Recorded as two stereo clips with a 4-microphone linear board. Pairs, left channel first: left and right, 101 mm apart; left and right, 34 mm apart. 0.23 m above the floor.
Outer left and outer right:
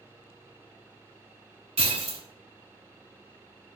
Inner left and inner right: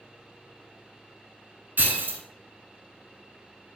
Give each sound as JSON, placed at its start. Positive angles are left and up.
{"t": 1.8, "sound": "breaking glass", "side_deg": -80, "distance_m": 0.6}